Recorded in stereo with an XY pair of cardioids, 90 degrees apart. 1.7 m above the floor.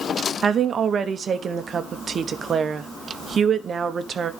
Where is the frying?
I don't hear frying.